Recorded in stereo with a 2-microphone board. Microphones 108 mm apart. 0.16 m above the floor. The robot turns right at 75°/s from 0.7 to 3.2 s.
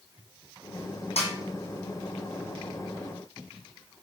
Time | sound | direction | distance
1.2 | a snare drum | 85° left | 1.5 m